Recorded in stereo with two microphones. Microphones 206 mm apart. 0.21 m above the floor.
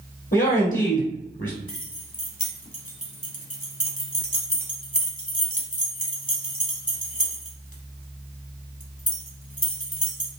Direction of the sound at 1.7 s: 40° left (ahead or behind).